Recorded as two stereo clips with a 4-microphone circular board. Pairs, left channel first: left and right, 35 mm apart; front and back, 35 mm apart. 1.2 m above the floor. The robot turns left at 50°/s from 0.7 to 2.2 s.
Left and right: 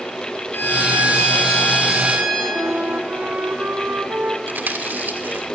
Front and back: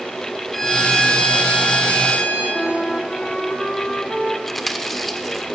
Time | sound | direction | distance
0.5 | a violin | 85° left | 5.5 m
2.5 | a flute | 65° right | 1.4 m
4.5 | chewing | 80° right | 1.3 m